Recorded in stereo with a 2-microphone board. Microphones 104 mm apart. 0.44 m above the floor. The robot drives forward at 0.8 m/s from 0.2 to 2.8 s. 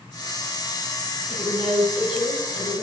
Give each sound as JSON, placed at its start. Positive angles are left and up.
{"t": 1.3, "sound": "a woman speaking", "side_deg": 55, "distance_m": 4.0}